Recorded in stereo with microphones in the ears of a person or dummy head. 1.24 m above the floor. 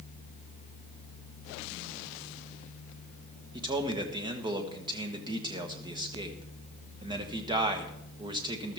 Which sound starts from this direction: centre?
A man speaking, at 3.5 s.